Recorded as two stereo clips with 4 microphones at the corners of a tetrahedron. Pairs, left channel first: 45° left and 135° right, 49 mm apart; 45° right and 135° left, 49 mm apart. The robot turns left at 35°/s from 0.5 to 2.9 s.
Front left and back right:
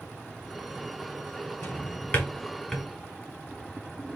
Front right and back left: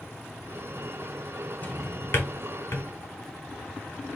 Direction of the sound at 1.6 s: 10° left.